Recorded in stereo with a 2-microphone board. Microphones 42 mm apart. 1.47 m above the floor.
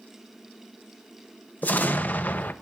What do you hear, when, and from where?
1.6 s an explosion: 45° left (ahead or behind), 0.8 m